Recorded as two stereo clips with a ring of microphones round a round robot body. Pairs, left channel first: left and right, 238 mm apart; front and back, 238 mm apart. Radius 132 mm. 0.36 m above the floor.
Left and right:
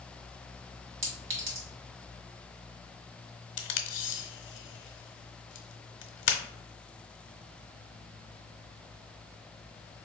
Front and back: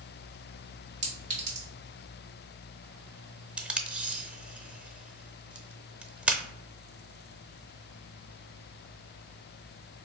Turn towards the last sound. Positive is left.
turn(degrees=95)